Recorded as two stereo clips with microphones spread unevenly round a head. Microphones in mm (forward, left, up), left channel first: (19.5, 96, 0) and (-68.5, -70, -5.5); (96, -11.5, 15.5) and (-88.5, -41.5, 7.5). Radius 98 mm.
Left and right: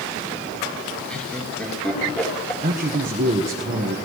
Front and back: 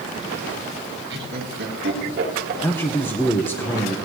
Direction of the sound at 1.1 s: 145° left.